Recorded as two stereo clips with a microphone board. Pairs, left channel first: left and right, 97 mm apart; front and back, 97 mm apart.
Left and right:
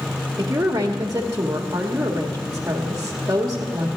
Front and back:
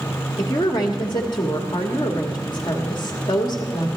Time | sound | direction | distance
0.4 | a woman speaking | 35° right | 1.4 m